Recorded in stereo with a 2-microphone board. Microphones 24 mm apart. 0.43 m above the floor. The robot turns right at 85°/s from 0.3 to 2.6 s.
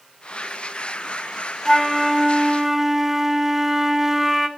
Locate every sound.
1.6 s a flute: 15° left (ahead or behind), 1.2 m; by 4.5 s 10° right (ahead or behind), 1.2 m